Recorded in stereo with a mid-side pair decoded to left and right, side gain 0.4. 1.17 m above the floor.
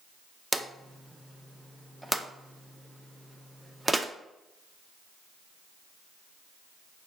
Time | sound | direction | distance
0.5 | a drawer | 10° right | 0.6 m